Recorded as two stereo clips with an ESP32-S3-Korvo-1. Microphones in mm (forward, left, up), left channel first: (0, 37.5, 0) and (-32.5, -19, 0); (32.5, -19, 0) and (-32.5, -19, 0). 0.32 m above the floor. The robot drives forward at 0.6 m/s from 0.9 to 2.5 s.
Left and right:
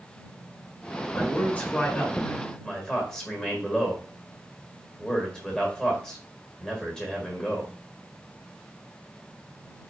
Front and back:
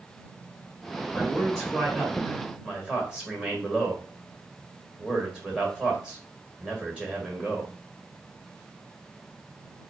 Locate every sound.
1.1 s a man speaking: 45° left, 1.6 m; by 7.7 s 120° left, 1.5 m